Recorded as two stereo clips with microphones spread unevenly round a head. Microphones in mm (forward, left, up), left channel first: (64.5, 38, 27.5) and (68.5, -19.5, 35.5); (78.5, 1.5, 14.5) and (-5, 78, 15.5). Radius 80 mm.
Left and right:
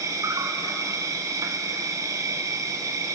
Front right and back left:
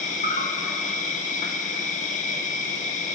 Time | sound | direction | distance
0.0 | an insect | 60° right | 1.5 m